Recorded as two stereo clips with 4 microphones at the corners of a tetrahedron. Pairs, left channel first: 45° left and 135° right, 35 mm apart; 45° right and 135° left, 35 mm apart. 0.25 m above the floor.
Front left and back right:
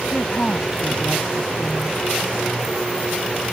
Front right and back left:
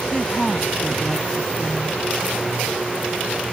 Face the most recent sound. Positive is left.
turn(degrees=10)